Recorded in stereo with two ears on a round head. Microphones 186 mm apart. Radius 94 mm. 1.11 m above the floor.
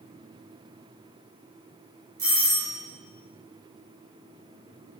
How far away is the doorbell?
About 1.9 m.